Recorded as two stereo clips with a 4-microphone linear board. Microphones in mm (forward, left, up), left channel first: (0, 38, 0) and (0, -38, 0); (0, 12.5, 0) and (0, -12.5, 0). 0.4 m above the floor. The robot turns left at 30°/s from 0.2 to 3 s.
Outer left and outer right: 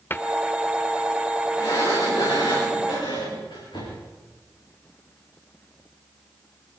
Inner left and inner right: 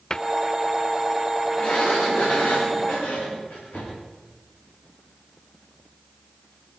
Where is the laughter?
I don't hear laughter.